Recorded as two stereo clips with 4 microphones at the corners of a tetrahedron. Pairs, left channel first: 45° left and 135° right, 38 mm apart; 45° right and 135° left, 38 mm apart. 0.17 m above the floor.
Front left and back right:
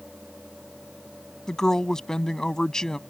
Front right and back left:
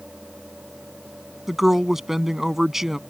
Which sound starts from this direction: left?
A woman speaking, at 1.5 s.